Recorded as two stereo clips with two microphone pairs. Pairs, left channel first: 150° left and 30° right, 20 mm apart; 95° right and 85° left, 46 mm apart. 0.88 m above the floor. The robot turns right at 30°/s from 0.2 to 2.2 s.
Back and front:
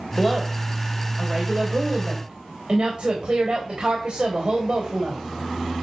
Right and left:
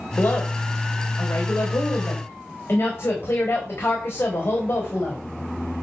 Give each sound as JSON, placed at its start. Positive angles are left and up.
{"t": 0.2, "sound": "a woman speaking", "azimuth_deg": -120, "distance_m": 3.0}